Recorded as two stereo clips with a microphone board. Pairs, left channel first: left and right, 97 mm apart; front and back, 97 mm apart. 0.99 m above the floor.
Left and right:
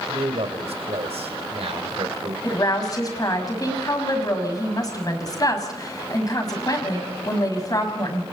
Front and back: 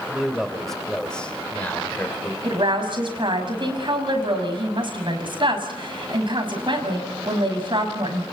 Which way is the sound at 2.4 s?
145° left.